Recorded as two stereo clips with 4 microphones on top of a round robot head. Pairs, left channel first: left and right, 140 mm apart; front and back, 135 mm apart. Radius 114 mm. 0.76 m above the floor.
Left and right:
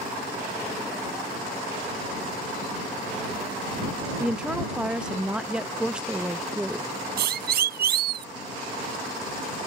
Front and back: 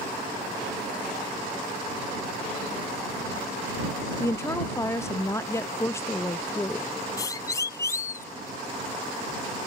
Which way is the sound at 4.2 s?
20° right.